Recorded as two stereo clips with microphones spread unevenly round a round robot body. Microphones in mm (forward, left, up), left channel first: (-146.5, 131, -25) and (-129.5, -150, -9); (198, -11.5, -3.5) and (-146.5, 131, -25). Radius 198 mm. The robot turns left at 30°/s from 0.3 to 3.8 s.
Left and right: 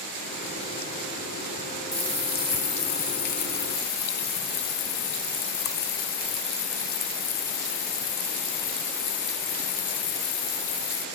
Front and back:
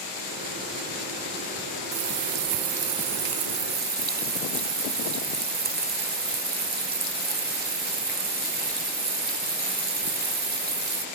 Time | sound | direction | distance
1.9 | a running tap | 150° left | ?